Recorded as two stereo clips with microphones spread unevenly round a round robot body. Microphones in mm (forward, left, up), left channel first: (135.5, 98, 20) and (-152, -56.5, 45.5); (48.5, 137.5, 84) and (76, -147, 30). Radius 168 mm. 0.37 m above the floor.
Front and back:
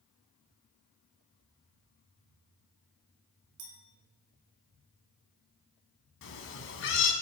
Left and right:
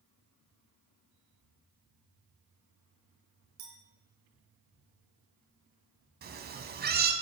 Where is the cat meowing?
25° right, 1.0 m.